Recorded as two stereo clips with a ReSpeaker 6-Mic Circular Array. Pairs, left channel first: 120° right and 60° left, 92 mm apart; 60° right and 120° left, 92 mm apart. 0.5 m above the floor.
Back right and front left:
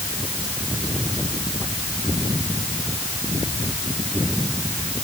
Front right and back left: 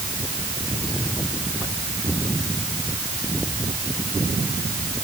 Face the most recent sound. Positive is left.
No sound to turn to.